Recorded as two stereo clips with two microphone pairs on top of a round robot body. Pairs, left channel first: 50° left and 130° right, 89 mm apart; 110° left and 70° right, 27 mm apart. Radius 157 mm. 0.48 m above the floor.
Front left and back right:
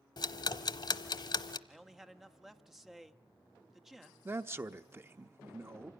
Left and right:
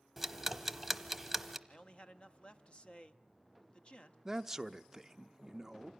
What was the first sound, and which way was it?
Ticking, 15° left.